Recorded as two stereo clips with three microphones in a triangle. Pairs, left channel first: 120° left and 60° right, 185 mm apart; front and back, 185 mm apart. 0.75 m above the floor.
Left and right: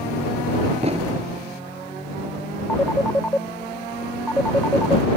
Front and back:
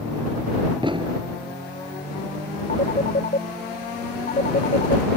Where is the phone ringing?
40° left.